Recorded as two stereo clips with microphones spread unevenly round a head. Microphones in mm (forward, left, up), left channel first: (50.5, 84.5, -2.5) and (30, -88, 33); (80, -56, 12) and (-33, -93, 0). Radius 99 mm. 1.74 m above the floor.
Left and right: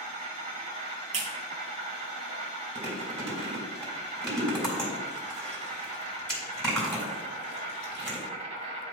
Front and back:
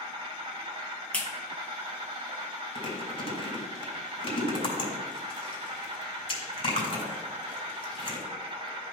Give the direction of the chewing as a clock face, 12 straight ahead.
12 o'clock.